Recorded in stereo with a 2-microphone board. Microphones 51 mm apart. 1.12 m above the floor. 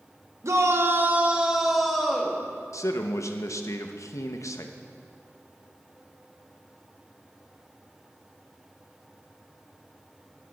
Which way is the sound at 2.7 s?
80° left.